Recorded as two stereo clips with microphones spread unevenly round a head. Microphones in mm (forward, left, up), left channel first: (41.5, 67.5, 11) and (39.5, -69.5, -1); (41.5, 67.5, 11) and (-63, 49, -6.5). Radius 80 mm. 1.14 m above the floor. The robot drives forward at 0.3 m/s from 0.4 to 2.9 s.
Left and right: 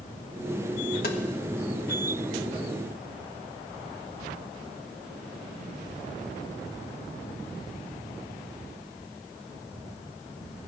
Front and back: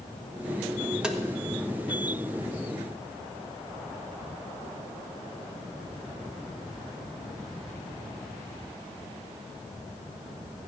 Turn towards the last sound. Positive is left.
turn(degrees=130)